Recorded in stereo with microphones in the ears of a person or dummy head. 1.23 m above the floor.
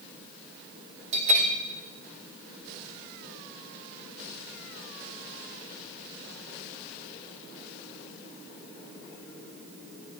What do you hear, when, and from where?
1.1 s a bell: 40° right (ahead or behind), 1.0 m